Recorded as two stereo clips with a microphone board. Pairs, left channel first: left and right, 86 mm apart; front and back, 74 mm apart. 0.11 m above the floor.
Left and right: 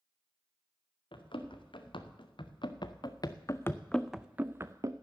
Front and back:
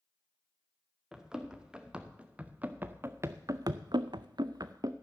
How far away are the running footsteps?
About 2 m.